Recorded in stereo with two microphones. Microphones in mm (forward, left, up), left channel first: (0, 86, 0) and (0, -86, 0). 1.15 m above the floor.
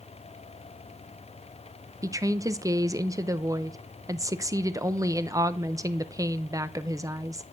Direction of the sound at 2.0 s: 20° right (ahead or behind).